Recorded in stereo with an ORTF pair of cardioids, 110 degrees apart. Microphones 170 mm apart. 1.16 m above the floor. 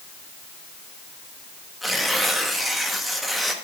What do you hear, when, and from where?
1.8 s tearing paper: straight ahead, 1.2 m